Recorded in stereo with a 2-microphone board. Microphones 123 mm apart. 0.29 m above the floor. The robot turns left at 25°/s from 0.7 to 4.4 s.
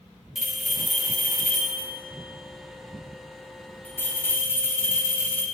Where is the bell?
Centre (ahead or behind), 1.5 m; by 5.5 s 20° left (ahead or behind), 1.5 m.